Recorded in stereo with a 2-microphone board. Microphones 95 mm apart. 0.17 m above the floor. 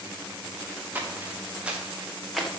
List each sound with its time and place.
0.9 s footsteps: 20° right (ahead or behind), 2.5 m; by 2.5 s 5° left (ahead or behind), 1.9 m